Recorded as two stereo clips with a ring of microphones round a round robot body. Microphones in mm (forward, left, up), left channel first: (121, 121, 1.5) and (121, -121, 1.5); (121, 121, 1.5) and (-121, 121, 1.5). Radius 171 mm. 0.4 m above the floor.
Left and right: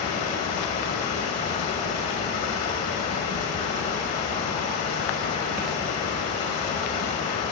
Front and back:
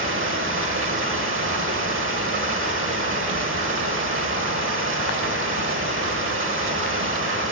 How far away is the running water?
About 1.3 m.